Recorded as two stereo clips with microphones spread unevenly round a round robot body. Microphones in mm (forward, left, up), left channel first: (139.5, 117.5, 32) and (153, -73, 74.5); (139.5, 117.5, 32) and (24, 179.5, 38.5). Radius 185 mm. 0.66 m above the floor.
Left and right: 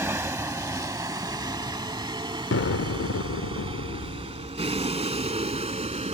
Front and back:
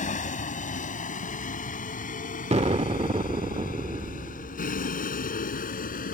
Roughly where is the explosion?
Left.